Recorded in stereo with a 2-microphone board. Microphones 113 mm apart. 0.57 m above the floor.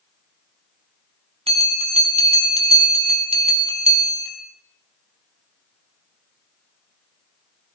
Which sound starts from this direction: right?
A bell, at 1.5 s.